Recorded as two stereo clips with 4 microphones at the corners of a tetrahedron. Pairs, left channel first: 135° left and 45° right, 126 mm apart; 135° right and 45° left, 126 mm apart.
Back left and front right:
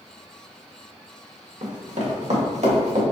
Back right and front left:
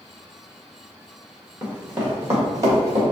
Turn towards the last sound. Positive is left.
turn(degrees=-20)